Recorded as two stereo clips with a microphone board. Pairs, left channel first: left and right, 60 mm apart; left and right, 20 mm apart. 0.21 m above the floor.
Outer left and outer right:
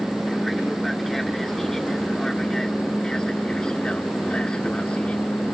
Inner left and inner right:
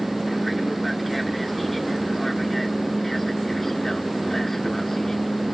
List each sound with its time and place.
0.0 s an aircraft: centre (ahead or behind); by 5.5 s 20° left (ahead or behind)